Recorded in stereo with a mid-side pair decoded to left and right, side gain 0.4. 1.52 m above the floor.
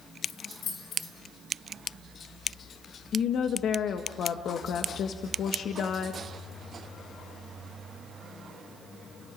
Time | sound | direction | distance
0.2 | keys jangling | 70° left | 4.5 m
3.1 | a woman speaking | 70° left | 1.4 m